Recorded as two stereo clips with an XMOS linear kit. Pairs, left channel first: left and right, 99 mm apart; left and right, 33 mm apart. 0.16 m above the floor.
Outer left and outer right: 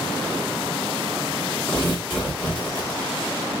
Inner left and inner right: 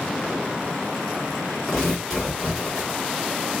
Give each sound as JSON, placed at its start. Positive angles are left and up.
{"t": 1.7, "sound": "tearing paper", "side_deg": 15, "distance_m": 1.7}